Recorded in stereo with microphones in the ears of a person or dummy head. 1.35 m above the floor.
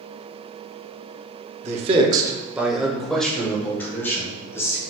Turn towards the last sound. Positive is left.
turn(degrees=20)  # may be behind; listen again after turning